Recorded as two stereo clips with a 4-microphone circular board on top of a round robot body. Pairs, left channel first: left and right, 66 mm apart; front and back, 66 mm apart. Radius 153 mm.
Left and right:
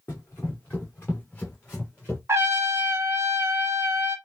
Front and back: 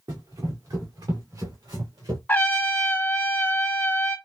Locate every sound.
0.1 s running footsteps: 155° left, 1.9 m; by 2.2 s 160° left, 3 m
2.3 s a trumpet: 55° right, 1.3 m